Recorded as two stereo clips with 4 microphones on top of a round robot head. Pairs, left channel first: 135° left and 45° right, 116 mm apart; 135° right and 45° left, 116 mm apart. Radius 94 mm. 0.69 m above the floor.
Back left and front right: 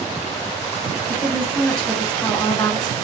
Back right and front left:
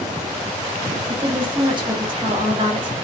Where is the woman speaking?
50° left, 1.4 m.